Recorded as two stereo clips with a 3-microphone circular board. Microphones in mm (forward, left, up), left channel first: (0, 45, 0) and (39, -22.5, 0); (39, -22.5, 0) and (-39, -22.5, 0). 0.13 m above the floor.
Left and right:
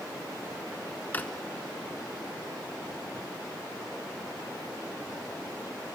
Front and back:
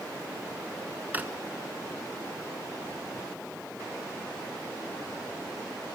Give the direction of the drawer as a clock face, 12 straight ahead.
7 o'clock.